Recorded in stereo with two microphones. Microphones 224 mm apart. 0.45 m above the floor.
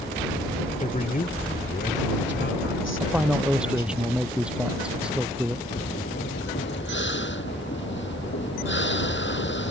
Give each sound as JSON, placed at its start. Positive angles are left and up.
{"t": 0.8, "sound": "a man speaking", "side_deg": 35}
{"t": 3.0, "sound": "a man speaking", "side_deg": -5}
{"t": 5.7, "sound": "breathing", "side_deg": 55}